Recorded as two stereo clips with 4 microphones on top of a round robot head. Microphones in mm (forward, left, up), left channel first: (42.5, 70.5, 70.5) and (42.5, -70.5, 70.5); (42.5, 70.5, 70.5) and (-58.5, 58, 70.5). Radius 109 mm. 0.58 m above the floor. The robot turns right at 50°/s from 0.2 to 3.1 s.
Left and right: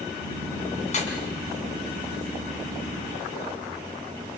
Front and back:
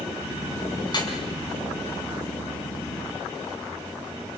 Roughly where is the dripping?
Ahead left.